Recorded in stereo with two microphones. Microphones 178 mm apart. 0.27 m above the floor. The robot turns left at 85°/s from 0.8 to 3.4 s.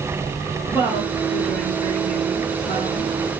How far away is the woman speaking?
About 2 m.